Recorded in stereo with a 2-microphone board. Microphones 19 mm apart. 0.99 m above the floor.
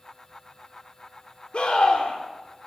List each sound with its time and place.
1.5 s a scream: 70° left (ahead or behind), 2.5 m